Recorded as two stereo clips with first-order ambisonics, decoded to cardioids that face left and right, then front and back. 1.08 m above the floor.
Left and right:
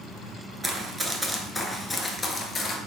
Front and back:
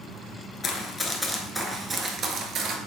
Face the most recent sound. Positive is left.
turn(degrees=145)